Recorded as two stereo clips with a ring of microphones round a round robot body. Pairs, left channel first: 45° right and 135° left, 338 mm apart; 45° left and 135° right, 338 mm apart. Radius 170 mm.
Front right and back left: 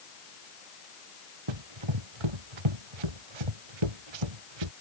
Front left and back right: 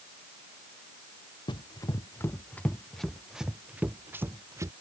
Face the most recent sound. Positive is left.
turn(degrees=145)